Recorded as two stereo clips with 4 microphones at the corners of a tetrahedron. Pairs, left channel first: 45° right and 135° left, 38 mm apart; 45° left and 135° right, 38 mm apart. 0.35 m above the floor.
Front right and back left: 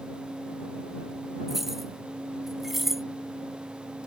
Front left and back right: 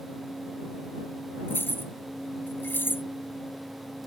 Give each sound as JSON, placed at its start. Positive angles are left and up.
{"t": 1.5, "sound": "keys jangling", "azimuth_deg": 55}